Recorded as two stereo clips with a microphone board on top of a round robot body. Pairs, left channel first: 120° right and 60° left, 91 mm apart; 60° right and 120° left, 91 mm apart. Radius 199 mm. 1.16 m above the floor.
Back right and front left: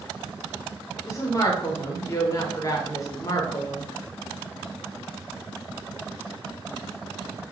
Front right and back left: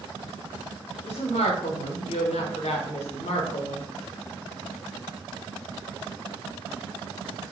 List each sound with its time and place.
1.1 s a woman speaking: 60° right, 0.7 m